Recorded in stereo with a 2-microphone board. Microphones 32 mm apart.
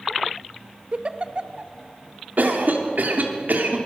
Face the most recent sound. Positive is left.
turn(degrees=-65)  # may be behind; listen again after turning